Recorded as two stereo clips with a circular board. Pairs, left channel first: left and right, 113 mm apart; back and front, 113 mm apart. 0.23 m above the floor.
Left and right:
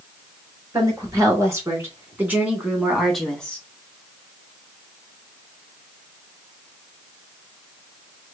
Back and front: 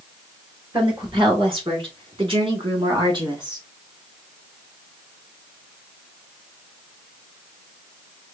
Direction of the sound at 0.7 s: 35° right.